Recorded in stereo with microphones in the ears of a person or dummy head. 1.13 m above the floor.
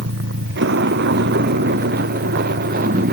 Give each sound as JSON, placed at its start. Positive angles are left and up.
{"t": 0.0, "sound": "a vehicle", "side_deg": -65}